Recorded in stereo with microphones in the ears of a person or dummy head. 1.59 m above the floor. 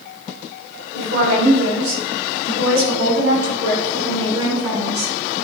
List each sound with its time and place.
0.9 s a woman speaking: 55° right (ahead or behind), 3 m; by 5.1 s 80° right, 5.5 m